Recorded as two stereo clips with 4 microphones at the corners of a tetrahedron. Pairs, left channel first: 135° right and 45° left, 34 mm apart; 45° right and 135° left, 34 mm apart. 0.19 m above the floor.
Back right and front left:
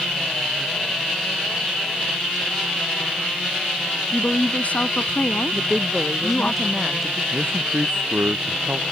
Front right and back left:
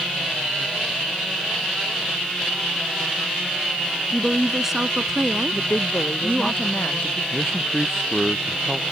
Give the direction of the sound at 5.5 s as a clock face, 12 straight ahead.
2 o'clock.